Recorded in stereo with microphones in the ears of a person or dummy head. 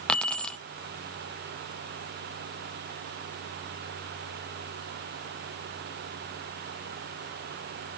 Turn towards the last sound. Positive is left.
turn(degrees=5)  # may be behind; listen again after turning